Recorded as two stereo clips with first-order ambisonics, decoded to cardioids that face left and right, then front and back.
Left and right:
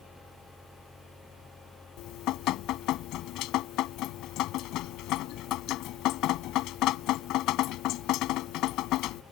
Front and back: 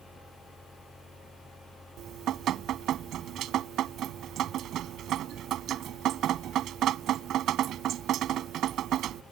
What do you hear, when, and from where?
2.0 s dripping: 130° left